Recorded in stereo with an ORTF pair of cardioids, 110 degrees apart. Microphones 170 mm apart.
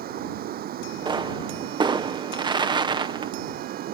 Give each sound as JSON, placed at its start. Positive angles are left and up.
{"t": 0.0, "sound": "running water", "azimuth_deg": -65}
{"t": 1.1, "sound": "a pop", "azimuth_deg": -25}